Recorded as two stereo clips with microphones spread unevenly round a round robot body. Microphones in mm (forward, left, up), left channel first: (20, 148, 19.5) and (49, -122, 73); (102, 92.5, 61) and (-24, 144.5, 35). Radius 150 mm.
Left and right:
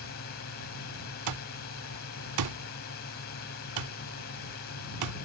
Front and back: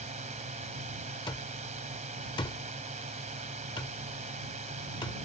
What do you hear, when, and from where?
0.0 s a drone: 140° left
1.3 s an alarm clock: 90° right